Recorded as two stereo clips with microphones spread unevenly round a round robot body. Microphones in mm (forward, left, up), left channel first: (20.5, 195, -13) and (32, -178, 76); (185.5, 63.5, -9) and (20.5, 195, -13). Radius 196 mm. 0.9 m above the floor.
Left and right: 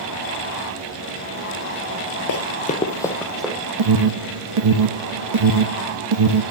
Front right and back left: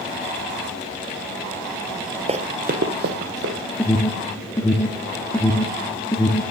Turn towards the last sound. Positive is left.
turn(degrees=-120)